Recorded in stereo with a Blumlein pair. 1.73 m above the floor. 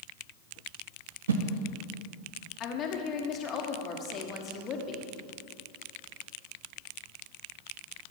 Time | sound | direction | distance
1.3 | a whoosh | 65° right | 0.9 m
2.6 | a woman speaking | 30° left | 1.5 m